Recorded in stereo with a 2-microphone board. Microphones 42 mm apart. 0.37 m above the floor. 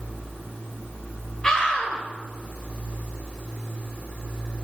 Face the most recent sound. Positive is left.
turn(degrees=20)  # may be behind; listen again after turning